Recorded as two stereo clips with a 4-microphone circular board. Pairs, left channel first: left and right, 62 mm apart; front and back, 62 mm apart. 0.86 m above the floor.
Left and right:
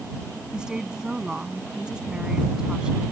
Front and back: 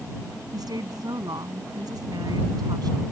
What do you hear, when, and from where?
0.5 s a woman speaking: 170° right